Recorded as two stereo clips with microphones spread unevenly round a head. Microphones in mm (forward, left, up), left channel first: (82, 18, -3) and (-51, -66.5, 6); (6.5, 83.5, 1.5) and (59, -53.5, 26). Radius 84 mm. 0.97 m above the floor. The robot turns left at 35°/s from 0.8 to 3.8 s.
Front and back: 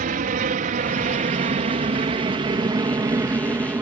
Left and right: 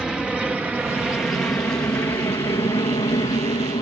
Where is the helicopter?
160° right; by 3.8 s 145° left.